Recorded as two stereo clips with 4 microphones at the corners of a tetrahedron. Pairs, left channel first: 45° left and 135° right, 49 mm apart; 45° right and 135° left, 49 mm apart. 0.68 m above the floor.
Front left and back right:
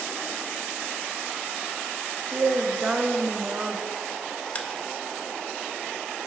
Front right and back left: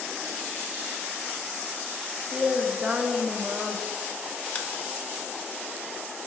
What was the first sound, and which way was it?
A woman speaking, 175° right.